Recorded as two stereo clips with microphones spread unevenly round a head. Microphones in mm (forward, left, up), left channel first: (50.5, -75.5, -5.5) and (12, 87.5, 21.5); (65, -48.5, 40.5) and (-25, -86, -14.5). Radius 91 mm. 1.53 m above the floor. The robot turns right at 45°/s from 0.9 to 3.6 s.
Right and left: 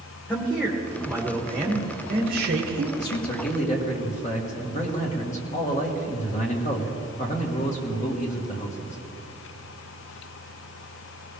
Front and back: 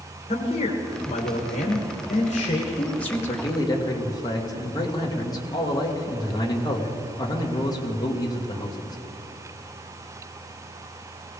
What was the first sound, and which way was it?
A man speaking, 10° left.